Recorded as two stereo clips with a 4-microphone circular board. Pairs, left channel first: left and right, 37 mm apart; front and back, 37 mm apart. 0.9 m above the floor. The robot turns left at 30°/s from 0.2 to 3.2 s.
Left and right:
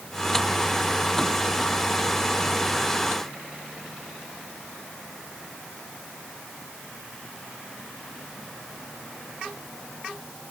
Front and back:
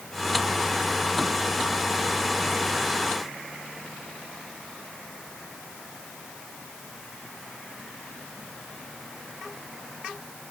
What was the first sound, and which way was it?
Only background noise.